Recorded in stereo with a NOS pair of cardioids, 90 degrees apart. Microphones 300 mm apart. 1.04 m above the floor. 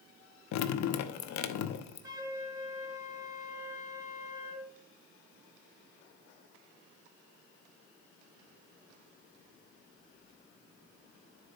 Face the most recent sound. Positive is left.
turn(degrees=-10)